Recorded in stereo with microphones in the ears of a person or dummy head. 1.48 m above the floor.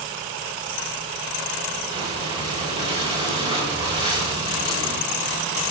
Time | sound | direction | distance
1.9 | breathing | 25° right (ahead or behind) | 4 m